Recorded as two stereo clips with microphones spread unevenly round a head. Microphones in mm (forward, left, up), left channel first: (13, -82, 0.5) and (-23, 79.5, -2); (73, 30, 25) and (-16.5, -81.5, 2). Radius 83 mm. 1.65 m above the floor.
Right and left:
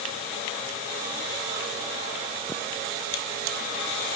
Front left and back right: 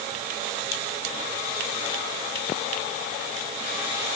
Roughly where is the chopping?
I don't hear chopping.